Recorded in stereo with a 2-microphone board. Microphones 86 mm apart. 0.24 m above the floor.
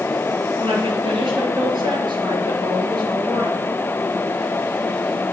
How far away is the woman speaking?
About 4 m.